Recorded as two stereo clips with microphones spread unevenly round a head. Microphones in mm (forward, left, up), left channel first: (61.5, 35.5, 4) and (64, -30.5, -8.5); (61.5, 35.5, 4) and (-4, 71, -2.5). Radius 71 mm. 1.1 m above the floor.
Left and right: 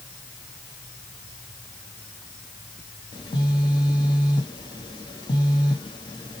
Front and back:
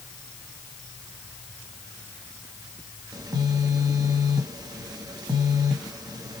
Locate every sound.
3.1 s a phone buzzing: 115° left, 1.2 m